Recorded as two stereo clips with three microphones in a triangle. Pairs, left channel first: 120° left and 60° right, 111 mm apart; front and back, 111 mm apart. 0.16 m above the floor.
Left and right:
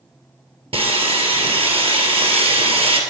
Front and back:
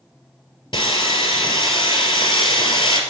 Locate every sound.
0.7 s sawing: 40° right, 2.0 m